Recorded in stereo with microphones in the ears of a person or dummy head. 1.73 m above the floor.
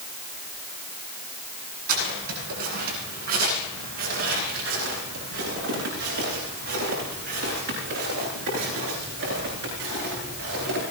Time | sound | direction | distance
1.9 | footsteps | 50° right (ahead or behind) | 8.5 m